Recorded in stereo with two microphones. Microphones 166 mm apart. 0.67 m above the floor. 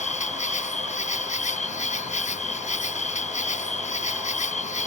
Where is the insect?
45° left (ahead or behind).